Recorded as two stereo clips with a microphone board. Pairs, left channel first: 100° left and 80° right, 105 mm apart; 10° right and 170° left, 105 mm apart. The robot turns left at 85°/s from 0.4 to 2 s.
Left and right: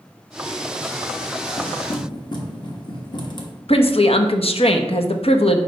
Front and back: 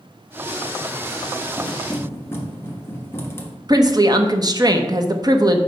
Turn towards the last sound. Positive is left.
turn(degrees=120)